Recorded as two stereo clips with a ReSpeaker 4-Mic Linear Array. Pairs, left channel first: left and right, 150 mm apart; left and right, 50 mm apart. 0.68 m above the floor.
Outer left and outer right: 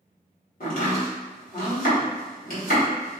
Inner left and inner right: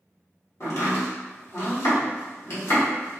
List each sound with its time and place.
0.6 s chopping: 70° left (ahead or behind), 1.3 m